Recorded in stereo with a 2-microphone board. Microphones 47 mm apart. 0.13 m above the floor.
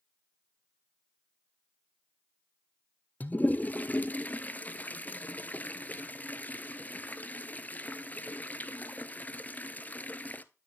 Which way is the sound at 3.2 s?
35° left (ahead or behind).